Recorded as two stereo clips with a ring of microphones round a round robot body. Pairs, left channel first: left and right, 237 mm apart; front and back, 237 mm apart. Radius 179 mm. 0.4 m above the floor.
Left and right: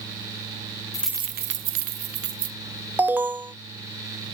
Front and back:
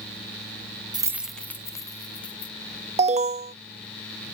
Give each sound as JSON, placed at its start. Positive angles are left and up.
{"t": 0.9, "sound": "keys jangling", "azimuth_deg": 135}
{"t": 3.0, "sound": "an alarm", "azimuth_deg": -165}